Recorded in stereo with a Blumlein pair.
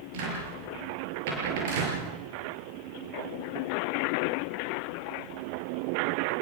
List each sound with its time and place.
0.1 s a cupboard door: 50° right, 6.5 m